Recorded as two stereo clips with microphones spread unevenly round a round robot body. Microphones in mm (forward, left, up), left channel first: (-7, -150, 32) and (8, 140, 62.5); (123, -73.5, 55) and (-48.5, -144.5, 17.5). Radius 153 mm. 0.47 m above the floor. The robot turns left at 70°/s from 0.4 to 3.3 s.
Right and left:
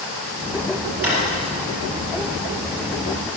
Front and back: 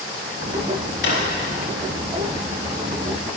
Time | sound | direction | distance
1.0 | a drawer | 5° left | 4.5 m